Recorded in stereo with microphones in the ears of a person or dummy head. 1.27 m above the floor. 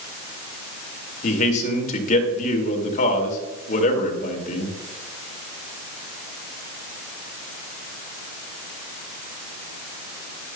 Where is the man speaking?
45° left (ahead or behind), 2.0 m.